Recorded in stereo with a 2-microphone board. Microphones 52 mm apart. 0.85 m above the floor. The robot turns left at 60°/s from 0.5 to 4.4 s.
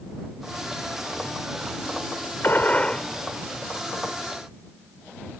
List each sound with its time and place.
2.4 s a gunshot: 45° left; by 3.1 s 10° left